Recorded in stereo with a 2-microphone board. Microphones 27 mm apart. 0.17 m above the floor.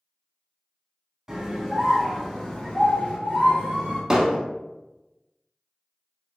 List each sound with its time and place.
1.3 s a scream: 15° right (ahead or behind), 1.1 m; by 4.0 s 55° left (ahead or behind), 1.7 m
4.1 s hammering: 25° right (ahead or behind), 0.9 m